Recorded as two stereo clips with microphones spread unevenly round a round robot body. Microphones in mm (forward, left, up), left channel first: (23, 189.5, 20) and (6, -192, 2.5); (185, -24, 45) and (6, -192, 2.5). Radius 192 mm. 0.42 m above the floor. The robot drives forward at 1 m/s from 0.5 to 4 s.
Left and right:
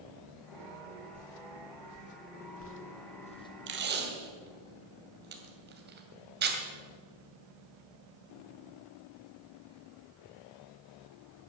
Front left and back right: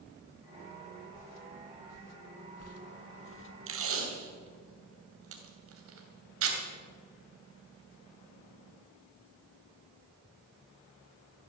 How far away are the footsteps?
About 1.6 m.